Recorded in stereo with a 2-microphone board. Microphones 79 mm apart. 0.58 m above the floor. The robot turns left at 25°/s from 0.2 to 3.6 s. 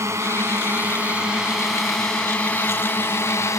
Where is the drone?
35° right (ahead or behind); by 3.6 s 40° left (ahead or behind).